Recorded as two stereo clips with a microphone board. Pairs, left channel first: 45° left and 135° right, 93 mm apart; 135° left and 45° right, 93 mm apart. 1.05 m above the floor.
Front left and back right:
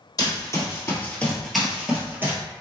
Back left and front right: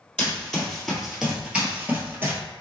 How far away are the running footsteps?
About 1.4 m.